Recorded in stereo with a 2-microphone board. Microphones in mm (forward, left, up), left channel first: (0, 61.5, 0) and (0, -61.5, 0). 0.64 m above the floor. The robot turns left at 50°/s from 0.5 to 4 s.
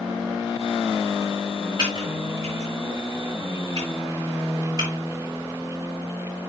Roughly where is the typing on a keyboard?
Right.